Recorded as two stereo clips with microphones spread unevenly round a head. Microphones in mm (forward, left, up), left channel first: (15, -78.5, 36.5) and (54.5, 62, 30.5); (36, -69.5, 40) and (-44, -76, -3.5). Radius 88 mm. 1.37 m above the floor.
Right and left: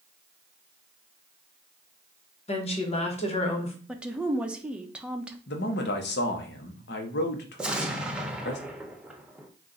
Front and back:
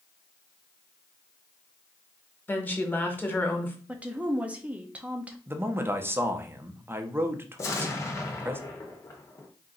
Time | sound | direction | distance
2.5 | a woman speaking | 60° right | 1.3 m
3.9 | a woman speaking | 155° left | 0.5 m
5.5 | a man speaking | 115° right | 0.9 m
7.6 | an explosion | 10° right | 0.7 m